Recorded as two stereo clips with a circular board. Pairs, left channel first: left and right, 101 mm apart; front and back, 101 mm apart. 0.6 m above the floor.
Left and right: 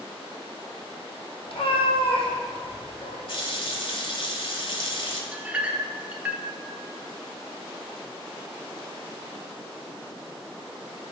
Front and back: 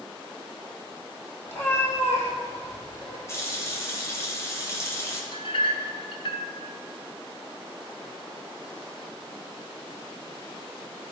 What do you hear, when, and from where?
1.5 s a cat meowing: 65° left, 2.5 m
3.3 s a running tap: 60° left, 1.9 m
5.3 s a clink: 15° right, 0.9 m